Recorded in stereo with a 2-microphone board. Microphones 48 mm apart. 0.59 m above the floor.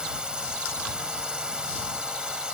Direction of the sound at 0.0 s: 15° right (ahead or behind).